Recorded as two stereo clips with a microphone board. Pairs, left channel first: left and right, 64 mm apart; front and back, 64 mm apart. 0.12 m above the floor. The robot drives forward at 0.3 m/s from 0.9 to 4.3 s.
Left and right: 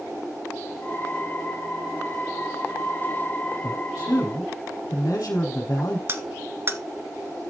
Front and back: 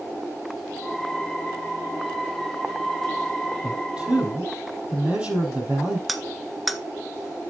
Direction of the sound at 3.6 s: 110° left.